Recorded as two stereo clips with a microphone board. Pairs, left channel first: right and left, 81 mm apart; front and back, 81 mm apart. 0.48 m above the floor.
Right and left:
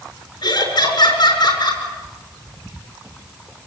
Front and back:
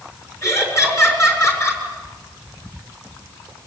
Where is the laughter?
55° right, 6.5 m.